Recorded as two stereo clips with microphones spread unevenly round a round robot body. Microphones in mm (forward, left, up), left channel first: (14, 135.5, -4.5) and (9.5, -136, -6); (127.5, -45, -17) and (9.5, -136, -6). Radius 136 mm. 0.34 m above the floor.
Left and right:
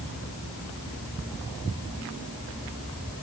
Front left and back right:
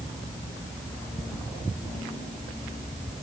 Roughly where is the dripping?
I don't hear dripping.